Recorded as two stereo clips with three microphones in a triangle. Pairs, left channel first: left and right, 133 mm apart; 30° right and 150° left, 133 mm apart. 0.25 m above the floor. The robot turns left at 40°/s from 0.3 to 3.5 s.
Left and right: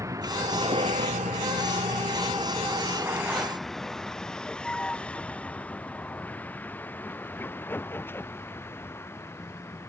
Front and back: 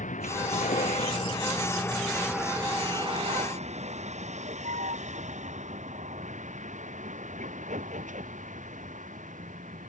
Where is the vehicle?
25° right; by 9.9 s 160° left.